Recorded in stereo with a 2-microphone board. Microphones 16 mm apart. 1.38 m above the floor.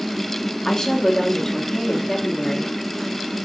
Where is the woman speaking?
35° left (ahead or behind), 2.5 m.